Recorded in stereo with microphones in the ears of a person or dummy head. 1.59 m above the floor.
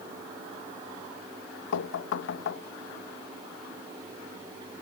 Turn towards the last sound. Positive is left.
turn(degrees=70)  # may be behind; listen again after turning